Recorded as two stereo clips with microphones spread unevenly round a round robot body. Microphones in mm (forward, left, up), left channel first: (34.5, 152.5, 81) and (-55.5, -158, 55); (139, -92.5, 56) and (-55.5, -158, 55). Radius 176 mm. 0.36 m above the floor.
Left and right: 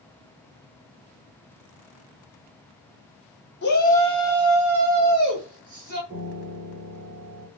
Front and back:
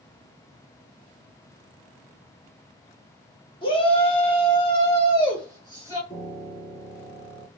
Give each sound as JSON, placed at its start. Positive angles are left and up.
{"t": 3.6, "sound": "a shout", "azimuth_deg": 55, "distance_m": 1.2}
{"t": 6.1, "sound": "a piano", "azimuth_deg": -20, "distance_m": 1.9}